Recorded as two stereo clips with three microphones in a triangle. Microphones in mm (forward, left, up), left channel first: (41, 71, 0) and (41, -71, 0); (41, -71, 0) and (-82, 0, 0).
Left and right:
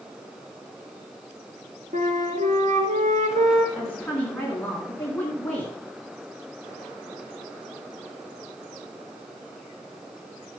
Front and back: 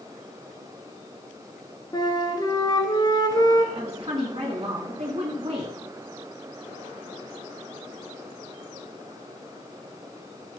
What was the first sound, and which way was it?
A flute, 90° right.